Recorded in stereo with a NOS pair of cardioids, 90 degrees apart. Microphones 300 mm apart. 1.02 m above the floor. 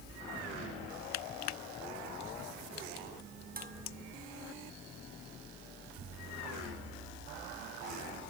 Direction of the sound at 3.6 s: 30° right.